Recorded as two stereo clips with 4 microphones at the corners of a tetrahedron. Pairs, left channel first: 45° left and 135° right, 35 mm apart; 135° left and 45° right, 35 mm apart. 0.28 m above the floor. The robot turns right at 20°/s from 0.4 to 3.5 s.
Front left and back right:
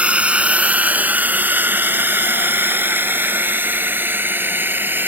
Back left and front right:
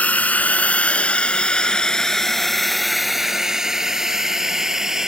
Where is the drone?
175° left; by 5.1 s 120° right.